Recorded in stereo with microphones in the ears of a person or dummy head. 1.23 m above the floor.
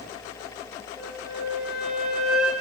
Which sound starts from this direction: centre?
A flute, at 1.0 s.